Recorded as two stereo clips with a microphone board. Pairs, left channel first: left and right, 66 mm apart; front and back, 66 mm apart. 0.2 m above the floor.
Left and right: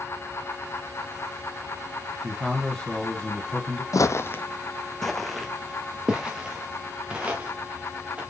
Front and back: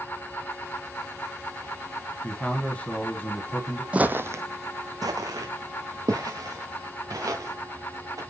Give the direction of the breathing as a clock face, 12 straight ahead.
No breathing in this recording.